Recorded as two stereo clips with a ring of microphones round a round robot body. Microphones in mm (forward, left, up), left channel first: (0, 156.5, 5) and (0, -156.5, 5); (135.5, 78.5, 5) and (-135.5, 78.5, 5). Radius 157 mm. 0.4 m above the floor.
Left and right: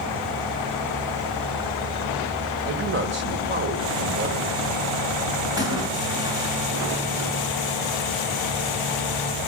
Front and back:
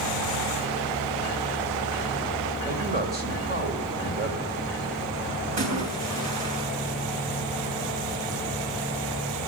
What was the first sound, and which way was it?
A man speaking, 130° right.